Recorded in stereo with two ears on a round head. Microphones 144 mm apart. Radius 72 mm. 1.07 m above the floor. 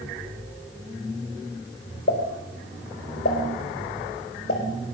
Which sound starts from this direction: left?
A pop, at 2.1 s.